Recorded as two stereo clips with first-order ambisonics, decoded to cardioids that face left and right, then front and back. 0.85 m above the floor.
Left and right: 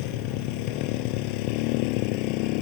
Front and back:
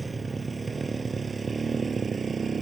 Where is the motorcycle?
100° left; by 2.6 s 105° left.